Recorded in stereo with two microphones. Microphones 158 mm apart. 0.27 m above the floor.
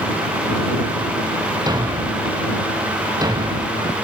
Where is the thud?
25° right (ahead or behind).